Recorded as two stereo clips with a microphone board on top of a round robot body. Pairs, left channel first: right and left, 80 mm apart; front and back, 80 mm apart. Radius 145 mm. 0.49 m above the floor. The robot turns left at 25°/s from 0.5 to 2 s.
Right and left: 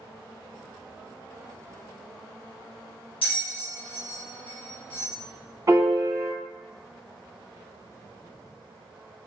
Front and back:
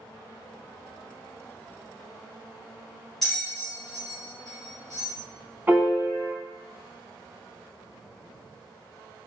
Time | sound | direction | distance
3.2 | a bell | 85° right | 0.6 m
5.7 | a piano | 115° left | 1.6 m